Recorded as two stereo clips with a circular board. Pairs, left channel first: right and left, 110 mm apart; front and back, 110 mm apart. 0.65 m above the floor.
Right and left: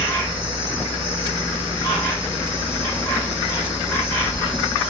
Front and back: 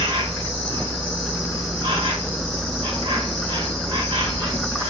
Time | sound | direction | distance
0.0 | an insect | 150° right | 1.4 m